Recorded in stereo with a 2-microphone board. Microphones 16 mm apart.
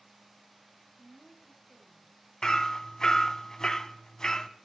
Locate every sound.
1.0 s a woman speaking: 10° right (ahead or behind), 3.5 m
2.4 s hammering: 35° left (ahead or behind), 0.8 m